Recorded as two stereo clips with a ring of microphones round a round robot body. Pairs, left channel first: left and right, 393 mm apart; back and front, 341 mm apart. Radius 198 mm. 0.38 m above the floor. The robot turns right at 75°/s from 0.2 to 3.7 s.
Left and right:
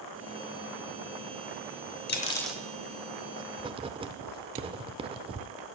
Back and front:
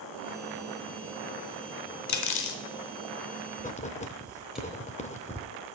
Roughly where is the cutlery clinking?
Behind left.